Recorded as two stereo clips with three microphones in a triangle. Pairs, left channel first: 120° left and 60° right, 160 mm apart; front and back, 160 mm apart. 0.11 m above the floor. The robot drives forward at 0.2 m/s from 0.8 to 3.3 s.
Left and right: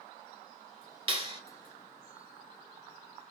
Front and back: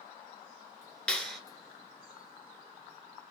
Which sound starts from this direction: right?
A clap, at 1.1 s.